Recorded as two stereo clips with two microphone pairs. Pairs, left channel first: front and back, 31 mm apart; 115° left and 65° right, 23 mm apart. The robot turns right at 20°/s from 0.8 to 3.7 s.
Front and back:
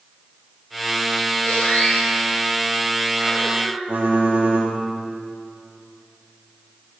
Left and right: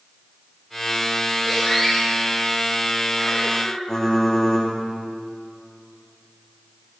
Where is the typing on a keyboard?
Straight behind, 4 m.